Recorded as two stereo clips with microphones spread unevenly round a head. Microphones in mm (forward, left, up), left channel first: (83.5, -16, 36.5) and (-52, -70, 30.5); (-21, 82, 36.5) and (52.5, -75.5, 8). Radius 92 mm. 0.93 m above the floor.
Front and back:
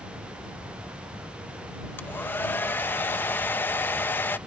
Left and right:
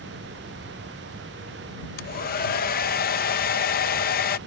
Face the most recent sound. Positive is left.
turn(degrees=95)